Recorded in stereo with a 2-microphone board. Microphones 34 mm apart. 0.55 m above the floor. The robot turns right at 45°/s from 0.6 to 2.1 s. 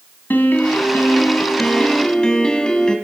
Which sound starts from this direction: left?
A piano, at 0.3 s.